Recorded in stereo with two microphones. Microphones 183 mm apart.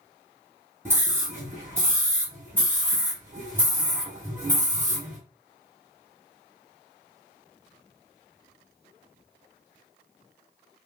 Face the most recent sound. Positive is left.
turn(degrees=-15)  # may be behind; listen again after turning